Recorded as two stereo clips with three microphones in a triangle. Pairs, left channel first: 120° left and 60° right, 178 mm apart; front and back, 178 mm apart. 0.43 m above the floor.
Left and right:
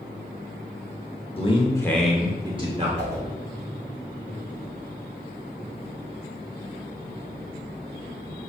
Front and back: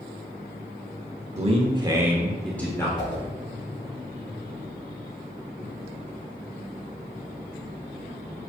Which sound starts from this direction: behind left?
A man speaking, at 1.4 s.